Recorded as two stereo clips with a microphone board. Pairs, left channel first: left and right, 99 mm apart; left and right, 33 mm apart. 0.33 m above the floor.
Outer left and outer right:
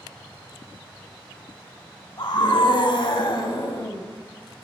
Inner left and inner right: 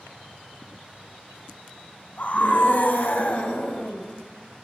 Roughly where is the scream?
Left.